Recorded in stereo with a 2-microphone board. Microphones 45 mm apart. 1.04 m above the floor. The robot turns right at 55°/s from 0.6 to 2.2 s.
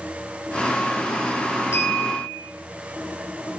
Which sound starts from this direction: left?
A clink, at 1.7 s.